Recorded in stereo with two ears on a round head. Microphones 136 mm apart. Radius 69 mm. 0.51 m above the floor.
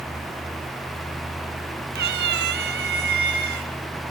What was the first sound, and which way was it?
A cat meowing, 80° right.